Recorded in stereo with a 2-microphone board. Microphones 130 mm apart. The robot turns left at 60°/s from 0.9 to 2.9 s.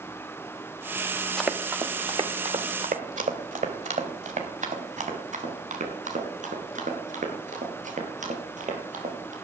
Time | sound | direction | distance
1.4 | running footsteps | 5° left (ahead or behind) | 1.7 m